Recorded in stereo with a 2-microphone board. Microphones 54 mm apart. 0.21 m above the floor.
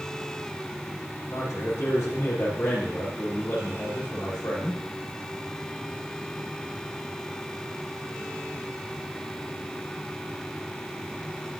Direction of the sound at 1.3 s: 65° left (ahead or behind).